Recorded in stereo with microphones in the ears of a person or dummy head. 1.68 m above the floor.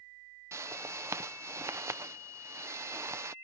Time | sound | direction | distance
0.5 | a whoosh | 15° right (ahead or behind) | ?